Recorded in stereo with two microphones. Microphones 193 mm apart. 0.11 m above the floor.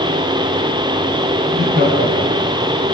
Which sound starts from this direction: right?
Laughter, at 1.5 s.